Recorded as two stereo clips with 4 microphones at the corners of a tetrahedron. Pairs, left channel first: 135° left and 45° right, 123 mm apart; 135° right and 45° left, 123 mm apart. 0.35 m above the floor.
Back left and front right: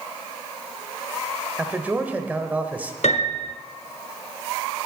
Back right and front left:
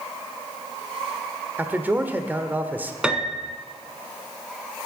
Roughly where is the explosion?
No explosion in this recording.